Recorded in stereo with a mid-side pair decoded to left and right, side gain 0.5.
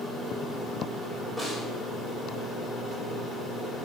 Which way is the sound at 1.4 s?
15° right.